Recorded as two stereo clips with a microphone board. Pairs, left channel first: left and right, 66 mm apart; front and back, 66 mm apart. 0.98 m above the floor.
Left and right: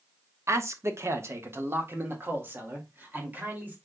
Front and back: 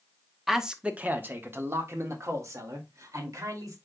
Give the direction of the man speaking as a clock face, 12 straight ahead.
3 o'clock.